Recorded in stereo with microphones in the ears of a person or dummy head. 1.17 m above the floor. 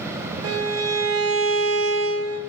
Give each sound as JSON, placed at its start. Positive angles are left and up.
{"t": 0.4, "sound": "a violin", "side_deg": -75, "distance_m": 1.5}